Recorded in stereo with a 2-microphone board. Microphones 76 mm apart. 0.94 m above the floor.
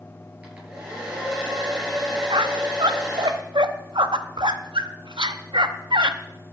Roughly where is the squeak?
Right.